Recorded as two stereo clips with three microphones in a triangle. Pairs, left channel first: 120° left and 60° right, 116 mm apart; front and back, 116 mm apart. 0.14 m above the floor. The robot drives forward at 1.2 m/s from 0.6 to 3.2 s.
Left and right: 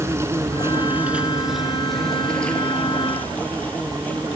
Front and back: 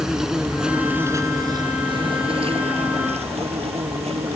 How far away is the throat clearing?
No throat clearing in this recording.